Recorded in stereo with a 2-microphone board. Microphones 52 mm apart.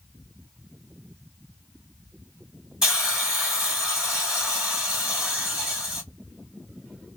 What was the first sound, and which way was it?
A hiss, 10° right (ahead or behind).